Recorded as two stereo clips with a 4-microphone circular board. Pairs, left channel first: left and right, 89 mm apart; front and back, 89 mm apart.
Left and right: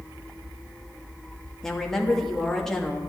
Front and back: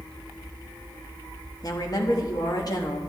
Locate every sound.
1.6 s a woman speaking: 5° left, 1.3 m